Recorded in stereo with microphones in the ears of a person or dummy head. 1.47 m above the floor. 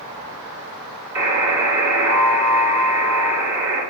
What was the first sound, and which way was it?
A buzzer, 15° right (ahead or behind).